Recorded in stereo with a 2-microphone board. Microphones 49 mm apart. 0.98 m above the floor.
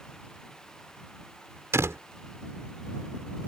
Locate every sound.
1.7 s a door slam: 80° right